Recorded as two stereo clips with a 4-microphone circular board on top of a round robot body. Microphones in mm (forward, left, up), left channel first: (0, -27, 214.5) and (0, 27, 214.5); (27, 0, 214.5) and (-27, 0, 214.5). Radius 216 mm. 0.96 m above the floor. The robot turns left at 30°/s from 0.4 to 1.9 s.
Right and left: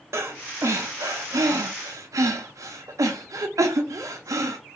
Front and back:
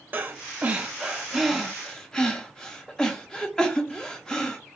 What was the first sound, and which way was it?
Breathing, 120° left.